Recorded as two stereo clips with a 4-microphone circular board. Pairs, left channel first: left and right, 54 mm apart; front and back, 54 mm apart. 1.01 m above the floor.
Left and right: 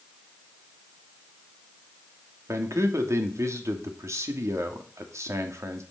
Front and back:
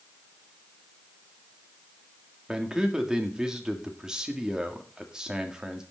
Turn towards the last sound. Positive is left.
turn(degrees=-105)